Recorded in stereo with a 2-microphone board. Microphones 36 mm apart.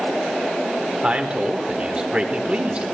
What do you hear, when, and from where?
1.0 s a man speaking: 35° right (ahead or behind), 1.4 m